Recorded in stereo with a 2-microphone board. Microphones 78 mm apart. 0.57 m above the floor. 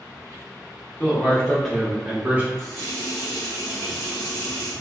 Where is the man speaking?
25° left (ahead or behind), 1.0 m; by 2.5 s 25° right (ahead or behind), 1.0 m.